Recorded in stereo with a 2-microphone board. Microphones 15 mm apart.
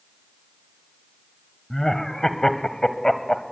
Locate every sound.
1.7 s laughter: 35° left (ahead or behind), 1.7 m